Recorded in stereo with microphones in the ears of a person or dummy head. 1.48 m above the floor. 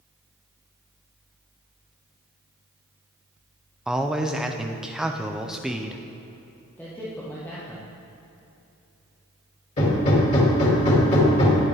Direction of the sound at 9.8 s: 40° left (ahead or behind).